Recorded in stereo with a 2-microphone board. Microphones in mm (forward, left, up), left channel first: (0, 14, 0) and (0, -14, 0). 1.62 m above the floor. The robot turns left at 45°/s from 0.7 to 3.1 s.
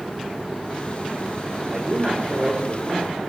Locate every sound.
1.7 s a man speaking: 25° right, 5 m; by 3.2 s 90° right, 5 m